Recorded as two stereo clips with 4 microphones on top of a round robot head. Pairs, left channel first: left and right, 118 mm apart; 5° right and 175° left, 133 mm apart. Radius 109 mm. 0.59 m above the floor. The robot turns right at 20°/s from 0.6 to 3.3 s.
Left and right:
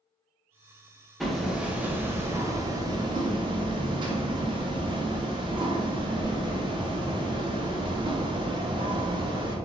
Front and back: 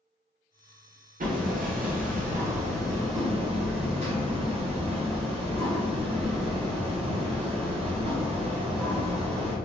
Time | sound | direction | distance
1.2 | hammering | straight behind | 0.8 m